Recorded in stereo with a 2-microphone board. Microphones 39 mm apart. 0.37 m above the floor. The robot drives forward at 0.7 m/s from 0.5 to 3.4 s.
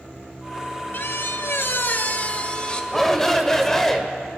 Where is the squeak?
55° left (ahead or behind), 0.6 m; by 2.8 s 25° left (ahead or behind), 1.1 m.